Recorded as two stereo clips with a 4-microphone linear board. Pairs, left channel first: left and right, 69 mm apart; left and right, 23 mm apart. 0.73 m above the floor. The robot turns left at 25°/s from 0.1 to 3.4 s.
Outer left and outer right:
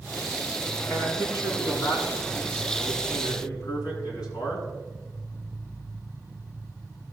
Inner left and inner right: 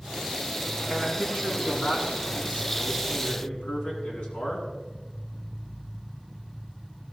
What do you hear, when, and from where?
0.9 s a man speaking: 140° left, 7 m; by 4.7 s 75° left, 7 m